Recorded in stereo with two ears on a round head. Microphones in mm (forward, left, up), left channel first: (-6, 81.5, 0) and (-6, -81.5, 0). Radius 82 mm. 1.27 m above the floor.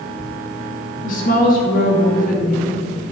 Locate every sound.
1.0 s a woman speaking: 50° left (ahead or behind), 3 m